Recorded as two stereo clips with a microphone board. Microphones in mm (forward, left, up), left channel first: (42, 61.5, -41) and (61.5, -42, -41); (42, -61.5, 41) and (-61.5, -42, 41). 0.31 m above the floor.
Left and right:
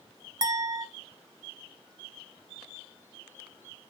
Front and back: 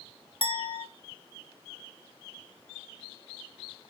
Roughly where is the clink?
Ahead right.